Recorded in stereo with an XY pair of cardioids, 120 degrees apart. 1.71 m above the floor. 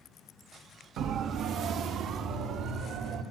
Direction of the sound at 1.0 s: 70° right.